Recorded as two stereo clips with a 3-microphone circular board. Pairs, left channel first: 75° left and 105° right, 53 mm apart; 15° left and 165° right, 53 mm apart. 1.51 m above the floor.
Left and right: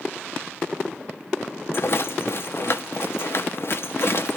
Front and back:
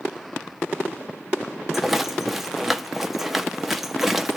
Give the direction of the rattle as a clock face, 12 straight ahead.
8 o'clock.